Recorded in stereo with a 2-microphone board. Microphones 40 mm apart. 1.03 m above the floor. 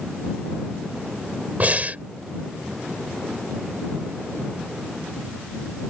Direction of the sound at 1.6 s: 40° right (ahead or behind).